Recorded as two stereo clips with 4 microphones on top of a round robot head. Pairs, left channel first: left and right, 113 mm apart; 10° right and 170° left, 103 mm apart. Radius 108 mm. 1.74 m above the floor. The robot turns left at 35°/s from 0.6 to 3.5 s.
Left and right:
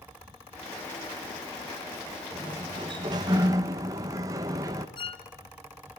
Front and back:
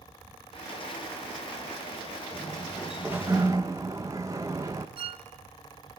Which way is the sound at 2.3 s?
85° right.